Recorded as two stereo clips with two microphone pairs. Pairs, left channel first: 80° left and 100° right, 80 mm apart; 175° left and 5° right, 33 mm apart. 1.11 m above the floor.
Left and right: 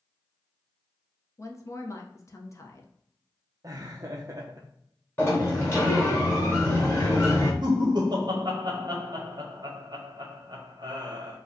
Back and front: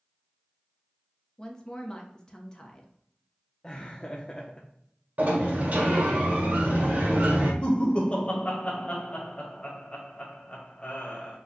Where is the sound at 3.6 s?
125° right, 0.6 m.